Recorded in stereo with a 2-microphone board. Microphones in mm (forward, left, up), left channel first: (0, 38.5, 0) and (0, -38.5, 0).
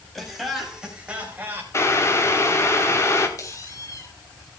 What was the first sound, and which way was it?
Laughter, centre (ahead or behind).